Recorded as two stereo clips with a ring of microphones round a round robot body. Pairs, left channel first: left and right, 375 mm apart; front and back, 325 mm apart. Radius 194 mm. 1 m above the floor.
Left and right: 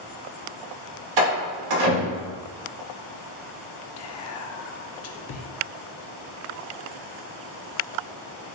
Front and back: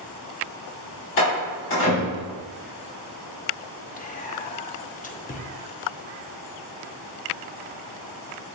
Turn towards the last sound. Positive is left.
turn(degrees=60)